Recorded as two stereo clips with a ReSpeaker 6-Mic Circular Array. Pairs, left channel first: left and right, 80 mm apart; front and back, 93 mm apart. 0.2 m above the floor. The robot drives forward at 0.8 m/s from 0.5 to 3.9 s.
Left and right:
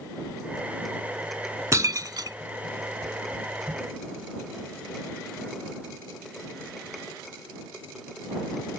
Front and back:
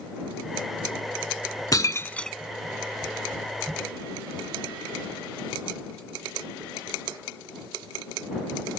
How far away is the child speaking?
No child speaking in this recording.